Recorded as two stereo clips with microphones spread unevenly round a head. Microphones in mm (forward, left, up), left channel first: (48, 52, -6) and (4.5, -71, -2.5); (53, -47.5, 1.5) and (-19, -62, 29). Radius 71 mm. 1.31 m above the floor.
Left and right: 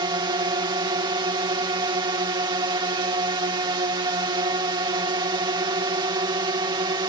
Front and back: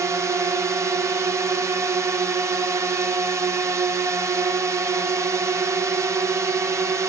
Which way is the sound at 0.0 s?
115° right.